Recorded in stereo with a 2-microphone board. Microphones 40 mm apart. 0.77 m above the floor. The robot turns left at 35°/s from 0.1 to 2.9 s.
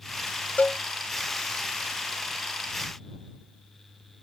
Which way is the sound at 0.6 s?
40° left (ahead or behind).